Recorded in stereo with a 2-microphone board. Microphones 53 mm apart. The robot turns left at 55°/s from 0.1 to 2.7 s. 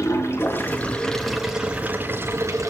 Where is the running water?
70° left, 4 m; by 2.7 s 75° right, 4 m.